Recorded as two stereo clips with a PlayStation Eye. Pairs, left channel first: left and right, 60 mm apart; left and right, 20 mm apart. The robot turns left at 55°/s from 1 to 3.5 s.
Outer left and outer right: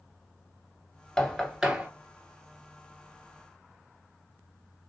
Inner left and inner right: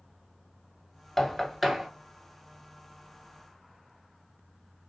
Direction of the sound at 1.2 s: 10° left (ahead or behind).